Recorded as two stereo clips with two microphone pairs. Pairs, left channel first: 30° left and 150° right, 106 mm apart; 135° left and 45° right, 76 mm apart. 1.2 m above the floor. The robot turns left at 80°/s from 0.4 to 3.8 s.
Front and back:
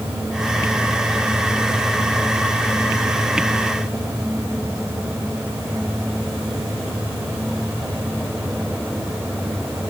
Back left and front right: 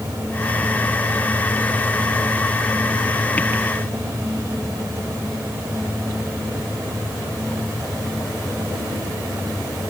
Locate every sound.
Only background noise.